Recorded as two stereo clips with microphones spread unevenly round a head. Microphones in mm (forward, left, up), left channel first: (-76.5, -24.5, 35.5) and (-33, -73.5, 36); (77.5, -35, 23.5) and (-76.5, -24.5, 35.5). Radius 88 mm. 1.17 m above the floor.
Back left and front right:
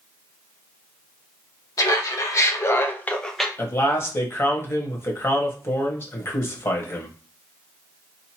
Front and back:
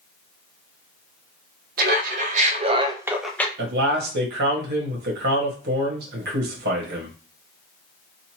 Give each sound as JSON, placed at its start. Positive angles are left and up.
{"t": 1.8, "sound": "laughter", "azimuth_deg": 155, "distance_m": 1.2}
{"t": 3.6, "sound": "a man speaking", "azimuth_deg": 180, "distance_m": 1.2}